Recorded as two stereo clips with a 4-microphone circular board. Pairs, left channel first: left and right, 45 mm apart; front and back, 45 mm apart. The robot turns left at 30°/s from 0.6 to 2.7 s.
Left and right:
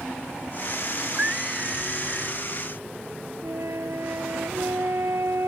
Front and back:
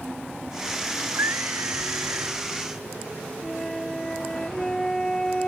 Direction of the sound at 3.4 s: 80° right.